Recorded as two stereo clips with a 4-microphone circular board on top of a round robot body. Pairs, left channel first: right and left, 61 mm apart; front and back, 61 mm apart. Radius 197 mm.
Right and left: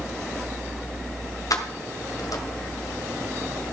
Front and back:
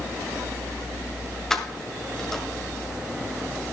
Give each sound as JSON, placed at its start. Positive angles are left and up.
{"t": 1.5, "sound": "keys jangling", "azimuth_deg": -85, "distance_m": 1.7}